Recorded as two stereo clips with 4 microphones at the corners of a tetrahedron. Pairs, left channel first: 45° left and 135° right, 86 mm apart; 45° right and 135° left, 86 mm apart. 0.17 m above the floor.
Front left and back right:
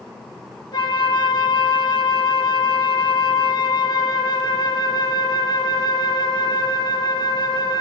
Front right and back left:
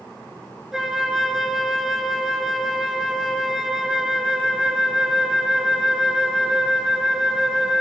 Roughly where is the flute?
Ahead left.